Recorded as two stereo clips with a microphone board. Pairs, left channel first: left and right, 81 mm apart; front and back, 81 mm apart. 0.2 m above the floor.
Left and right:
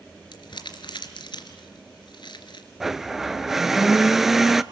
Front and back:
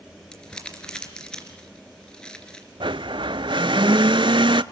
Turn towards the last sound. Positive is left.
turn(degrees=-175)